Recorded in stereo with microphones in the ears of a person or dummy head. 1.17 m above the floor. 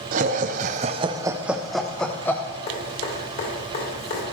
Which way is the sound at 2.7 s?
55° left (ahead or behind).